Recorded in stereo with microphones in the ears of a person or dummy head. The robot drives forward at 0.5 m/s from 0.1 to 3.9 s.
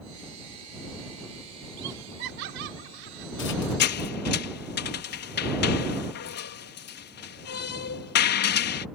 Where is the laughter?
65° right (ahead or behind); by 3.8 s 75° right (ahead or behind).